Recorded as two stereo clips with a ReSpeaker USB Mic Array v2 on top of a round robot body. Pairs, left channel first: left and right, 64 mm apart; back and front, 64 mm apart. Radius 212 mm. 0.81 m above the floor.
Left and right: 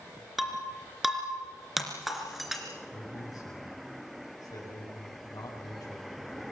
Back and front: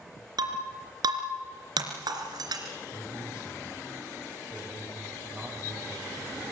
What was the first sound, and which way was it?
Breaking glass, 5° right.